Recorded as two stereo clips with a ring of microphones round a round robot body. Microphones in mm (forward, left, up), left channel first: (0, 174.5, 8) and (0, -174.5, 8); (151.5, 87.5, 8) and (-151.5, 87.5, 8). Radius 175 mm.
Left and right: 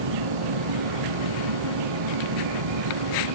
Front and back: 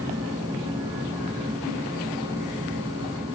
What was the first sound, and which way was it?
An insect, 100° right.